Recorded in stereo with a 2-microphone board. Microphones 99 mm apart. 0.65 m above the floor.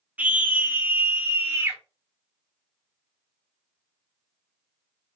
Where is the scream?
15° right (ahead or behind), 1.0 m; by 1.8 s 25° right (ahead or behind), 1.8 m.